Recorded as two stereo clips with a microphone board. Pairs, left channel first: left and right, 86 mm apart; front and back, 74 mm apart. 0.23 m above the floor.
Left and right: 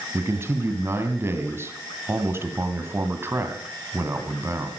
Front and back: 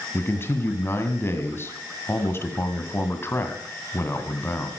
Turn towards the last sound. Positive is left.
turn(degrees=-45)